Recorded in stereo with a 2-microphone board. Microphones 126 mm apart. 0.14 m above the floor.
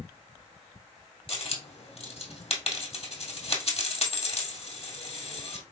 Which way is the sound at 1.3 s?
50° left (ahead or behind).